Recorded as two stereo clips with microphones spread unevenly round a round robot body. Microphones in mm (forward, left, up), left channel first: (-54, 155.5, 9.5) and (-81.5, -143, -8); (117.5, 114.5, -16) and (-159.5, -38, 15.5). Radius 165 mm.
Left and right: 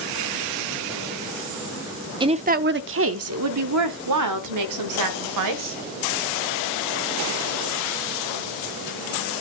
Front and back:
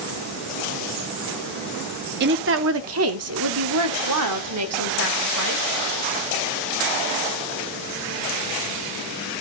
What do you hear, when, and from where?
2.2 s a woman speaking: 140° right, 0.7 m; by 5.8 s 105° right, 2 m